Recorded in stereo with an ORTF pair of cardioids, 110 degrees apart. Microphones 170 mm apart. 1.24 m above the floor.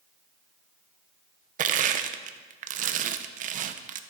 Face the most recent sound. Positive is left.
turn(degrees=-50)